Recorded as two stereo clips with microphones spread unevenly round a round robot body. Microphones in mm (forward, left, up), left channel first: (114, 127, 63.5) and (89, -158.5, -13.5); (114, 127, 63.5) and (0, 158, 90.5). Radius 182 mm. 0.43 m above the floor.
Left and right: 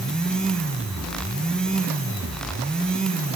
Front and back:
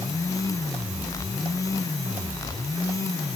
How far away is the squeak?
No squeak in this recording.